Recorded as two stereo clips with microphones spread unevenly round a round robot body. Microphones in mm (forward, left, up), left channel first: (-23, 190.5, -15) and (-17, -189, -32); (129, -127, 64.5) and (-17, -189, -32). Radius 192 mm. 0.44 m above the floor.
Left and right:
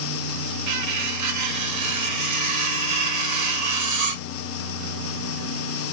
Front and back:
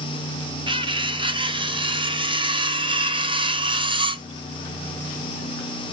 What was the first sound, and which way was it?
Cutlery clinking, 125° right.